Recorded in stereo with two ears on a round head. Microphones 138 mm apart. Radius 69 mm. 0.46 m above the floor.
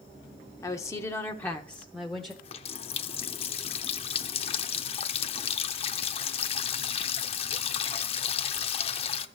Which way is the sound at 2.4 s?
40° left (ahead or behind).